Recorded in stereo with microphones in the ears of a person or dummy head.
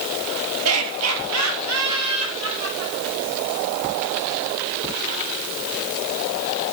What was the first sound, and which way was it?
Laughter, 80° right.